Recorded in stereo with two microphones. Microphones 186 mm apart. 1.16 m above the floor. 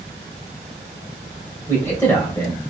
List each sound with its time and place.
1.7 s a man speaking: 15° left (ahead or behind), 1.0 m